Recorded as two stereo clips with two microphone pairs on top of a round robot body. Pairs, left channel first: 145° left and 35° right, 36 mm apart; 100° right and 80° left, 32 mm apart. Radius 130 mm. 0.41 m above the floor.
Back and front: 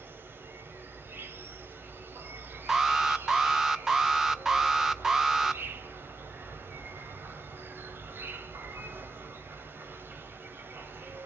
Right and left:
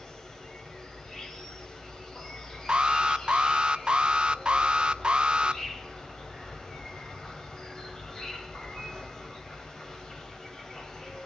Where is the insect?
30° right, 3 m.